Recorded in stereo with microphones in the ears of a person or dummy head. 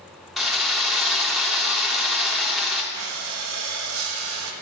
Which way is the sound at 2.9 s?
80° right.